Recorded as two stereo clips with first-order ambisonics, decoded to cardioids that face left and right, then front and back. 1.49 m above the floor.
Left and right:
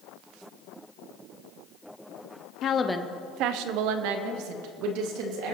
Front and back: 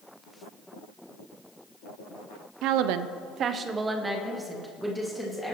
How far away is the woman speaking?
About 0.7 m.